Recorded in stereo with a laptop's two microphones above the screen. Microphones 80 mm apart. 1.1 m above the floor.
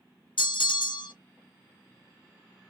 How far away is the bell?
About 0.8 m.